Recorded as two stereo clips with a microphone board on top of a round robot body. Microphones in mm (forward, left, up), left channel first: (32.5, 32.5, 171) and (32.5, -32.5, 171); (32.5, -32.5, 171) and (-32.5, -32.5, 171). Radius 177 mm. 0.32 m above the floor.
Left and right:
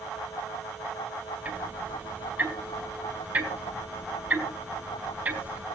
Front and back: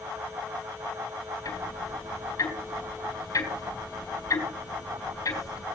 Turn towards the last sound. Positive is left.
turn(degrees=-20)